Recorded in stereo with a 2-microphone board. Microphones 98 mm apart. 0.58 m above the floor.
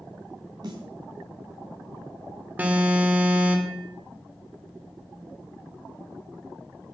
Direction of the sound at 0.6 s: 45° right (ahead or behind).